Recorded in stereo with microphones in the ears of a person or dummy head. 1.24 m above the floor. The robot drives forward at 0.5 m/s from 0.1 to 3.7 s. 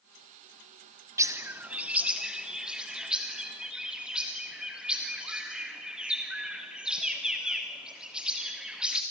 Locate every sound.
1.2 s a bird: 15° right (ahead or behind), 0.5 m; by 9.0 s 5° right (ahead or behind), 1.7 m